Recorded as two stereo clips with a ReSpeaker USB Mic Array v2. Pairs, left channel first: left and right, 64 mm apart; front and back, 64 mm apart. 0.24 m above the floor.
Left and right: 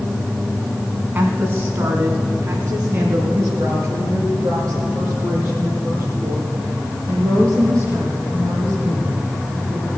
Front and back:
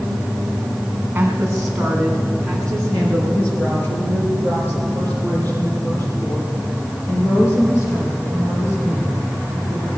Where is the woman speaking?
125° right, 2.0 m; by 9.9 s 45° right, 11.5 m.